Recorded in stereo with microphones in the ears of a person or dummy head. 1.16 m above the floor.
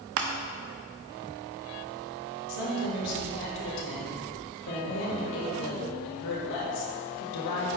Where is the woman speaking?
65° left (ahead or behind), 2 m.